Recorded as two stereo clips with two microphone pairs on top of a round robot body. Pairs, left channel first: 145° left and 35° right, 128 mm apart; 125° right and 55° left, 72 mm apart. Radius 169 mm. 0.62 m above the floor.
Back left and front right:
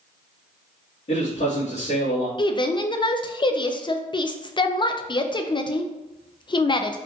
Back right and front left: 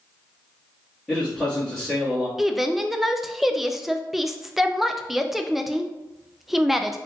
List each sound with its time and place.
1.1 s a man speaking: 160° left, 1.7 m
2.4 s a woman speaking: 135° left, 0.5 m